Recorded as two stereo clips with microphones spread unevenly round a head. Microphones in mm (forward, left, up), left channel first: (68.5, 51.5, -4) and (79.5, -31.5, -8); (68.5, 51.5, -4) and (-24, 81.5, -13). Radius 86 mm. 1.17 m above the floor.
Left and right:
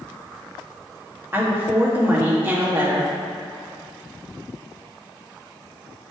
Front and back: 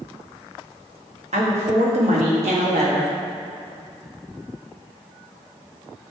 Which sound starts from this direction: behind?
A woman speaking, at 1.3 s.